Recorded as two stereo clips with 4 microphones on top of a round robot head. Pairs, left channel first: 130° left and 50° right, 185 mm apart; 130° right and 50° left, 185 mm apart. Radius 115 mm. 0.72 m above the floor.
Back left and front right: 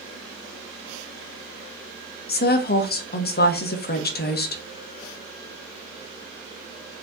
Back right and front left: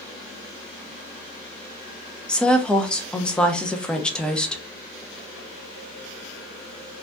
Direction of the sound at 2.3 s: 145° left.